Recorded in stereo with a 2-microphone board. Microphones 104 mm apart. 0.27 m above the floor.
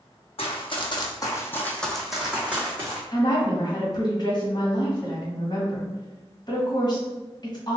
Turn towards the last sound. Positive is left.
turn(degrees=45)  # may be behind; listen again after turning